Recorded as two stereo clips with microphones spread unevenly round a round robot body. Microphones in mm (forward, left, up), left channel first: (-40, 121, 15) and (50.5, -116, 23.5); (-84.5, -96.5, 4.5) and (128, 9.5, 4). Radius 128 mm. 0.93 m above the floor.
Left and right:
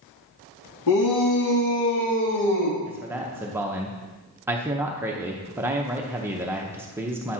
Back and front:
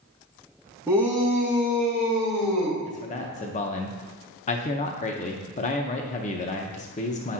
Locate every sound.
0.9 s a shout: 110° left, 1.2 m; by 2.8 s 115° left, 2 m
2.9 s a man speaking: 145° right, 0.5 m